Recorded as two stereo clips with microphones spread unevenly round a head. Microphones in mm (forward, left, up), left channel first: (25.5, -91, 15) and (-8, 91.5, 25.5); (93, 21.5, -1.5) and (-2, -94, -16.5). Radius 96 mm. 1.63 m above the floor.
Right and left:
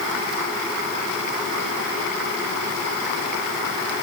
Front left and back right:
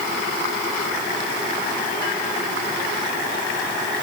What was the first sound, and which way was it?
Only background noise.